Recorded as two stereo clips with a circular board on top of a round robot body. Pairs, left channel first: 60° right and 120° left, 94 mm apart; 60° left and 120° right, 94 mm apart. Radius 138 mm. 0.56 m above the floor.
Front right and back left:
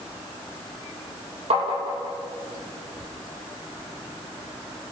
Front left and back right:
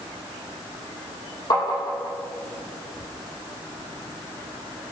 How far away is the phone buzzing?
I don't hear a phone buzzing.